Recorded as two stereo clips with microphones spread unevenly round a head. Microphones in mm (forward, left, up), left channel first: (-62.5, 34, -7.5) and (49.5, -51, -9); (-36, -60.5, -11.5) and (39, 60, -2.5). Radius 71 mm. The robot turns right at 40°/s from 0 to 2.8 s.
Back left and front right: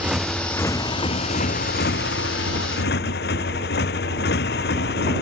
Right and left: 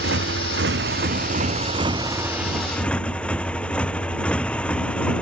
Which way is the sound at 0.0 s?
45° left.